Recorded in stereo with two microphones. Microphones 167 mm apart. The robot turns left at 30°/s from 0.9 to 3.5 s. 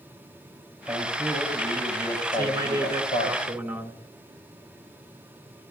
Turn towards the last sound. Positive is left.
turn(degrees=-160)